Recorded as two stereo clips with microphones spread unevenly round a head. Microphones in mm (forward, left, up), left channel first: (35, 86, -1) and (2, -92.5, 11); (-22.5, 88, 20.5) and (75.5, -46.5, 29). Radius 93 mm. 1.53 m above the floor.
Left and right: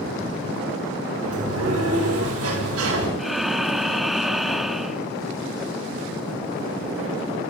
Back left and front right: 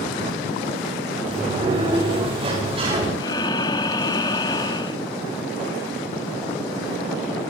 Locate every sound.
1.2 s a sliding door: 115° right, 8.5 m
3.2 s breathing: straight behind, 1.0 m